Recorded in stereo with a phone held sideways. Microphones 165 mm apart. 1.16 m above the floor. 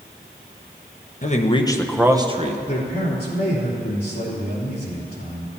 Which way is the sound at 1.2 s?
45° left (ahead or behind).